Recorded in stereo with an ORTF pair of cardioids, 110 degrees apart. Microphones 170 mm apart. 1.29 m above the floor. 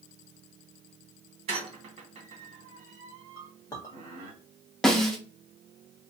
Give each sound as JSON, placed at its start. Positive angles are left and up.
{"t": 1.5, "sound": "a squeak", "azimuth_deg": -40, "distance_m": 1.2}
{"t": 3.4, "sound": "a clink", "azimuth_deg": 20, "distance_m": 1.4}
{"t": 4.8, "sound": "a snare drum", "azimuth_deg": 0, "distance_m": 0.8}